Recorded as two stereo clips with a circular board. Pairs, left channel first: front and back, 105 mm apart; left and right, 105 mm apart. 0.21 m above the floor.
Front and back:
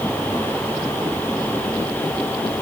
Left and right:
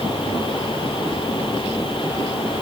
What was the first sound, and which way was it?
Only background noise.